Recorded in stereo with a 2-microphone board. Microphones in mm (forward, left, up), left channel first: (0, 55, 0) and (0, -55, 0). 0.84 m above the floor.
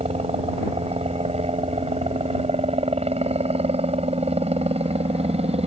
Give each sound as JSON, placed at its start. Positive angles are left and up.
{"t": 0.0, "sound": "a helicopter", "side_deg": -70}